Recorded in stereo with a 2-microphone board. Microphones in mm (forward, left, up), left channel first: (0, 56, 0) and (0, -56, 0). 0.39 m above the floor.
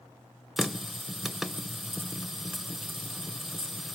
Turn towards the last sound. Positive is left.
turn(degrees=0)  # may be behind; listen again after turning